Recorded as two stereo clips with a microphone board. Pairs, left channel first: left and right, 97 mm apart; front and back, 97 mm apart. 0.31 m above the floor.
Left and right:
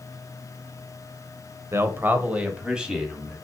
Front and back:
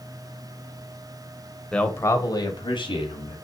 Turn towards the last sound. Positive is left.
turn(degrees=-5)